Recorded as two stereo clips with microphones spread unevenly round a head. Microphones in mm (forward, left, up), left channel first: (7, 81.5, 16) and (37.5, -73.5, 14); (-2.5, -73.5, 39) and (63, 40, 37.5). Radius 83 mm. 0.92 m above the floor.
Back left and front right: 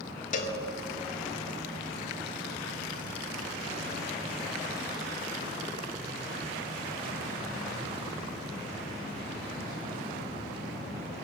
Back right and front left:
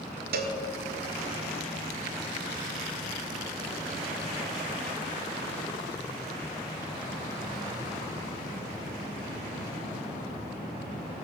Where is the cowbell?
60° left, 1.3 m.